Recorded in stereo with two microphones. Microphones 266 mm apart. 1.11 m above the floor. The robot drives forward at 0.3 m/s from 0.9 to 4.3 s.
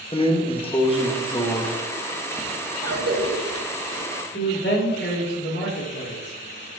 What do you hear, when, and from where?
0.1 s a drawer: 20° left (ahead or behind), 0.7 m; by 2.5 s 10° left (ahead or behind), 1.1 m
2.8 s a cough: 60° right (ahead or behind), 2 m; by 4.1 s 70° right (ahead or behind), 1.9 m
4.3 s a man speaking: 40° left (ahead or behind), 2 m